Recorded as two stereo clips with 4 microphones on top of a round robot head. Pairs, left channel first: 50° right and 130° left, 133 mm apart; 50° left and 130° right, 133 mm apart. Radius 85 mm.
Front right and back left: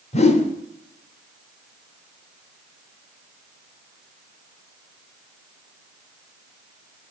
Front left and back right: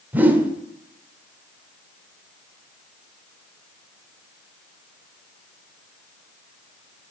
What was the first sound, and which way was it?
A whoosh, 55° right.